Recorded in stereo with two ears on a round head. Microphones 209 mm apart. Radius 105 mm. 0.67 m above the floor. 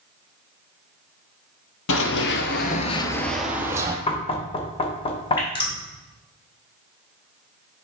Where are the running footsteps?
60° left (ahead or behind), 1.3 m; by 4.0 s 15° right (ahead or behind), 1.5 m.